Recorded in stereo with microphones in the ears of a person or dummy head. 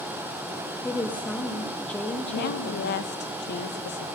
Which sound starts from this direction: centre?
A woman speaking, at 0.8 s.